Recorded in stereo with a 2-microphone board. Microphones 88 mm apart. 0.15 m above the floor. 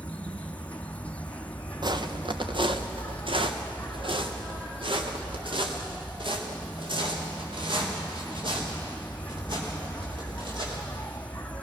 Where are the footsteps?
55° right (ahead or behind), 1.4 m; by 10.8 s 70° right (ahead or behind), 8 m.